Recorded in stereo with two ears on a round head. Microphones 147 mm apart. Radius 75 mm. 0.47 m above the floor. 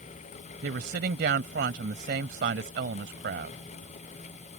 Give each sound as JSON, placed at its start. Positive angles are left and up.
{"t": 0.6, "sound": "a woman speaking", "side_deg": -65}